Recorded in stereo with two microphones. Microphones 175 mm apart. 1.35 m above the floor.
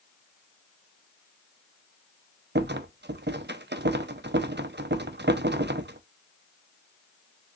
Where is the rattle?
80° right, 0.5 m.